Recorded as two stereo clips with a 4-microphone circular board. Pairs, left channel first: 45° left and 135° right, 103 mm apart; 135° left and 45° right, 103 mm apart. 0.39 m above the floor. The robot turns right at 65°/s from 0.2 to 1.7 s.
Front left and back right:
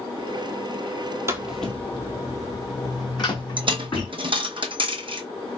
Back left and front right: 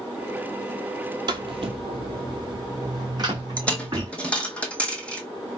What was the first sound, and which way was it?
Footsteps, 80° right.